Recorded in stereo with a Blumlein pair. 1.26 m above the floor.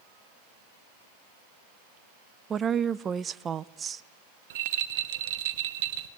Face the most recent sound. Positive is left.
turn(degrees=-55)